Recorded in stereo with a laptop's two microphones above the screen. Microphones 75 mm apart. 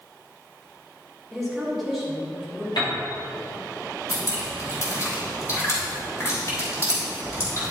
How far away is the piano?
About 3 m.